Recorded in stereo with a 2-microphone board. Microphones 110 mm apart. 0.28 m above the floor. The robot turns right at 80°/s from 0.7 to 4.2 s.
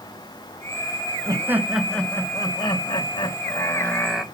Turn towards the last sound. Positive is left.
turn(degrees=-170)